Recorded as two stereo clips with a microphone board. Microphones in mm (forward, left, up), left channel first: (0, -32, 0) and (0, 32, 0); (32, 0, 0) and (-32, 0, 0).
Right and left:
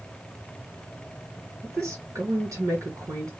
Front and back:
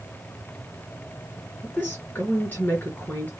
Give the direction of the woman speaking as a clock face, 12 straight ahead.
10 o'clock.